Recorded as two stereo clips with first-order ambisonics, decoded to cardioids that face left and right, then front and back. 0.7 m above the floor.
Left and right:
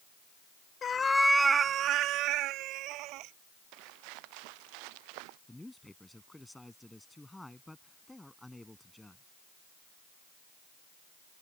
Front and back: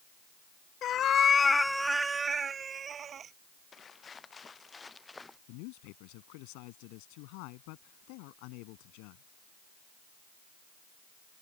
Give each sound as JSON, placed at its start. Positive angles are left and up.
{"t": 0.8, "sound": "a cat meowing", "azimuth_deg": 35}
{"t": 3.7, "sound": "footsteps", "azimuth_deg": -70}
{"t": 5.5, "sound": "a man speaking", "azimuth_deg": 5}